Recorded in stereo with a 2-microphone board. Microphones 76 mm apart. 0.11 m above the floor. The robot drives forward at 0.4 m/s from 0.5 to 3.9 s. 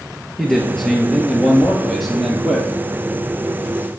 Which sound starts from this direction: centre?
A man speaking, at 0.4 s.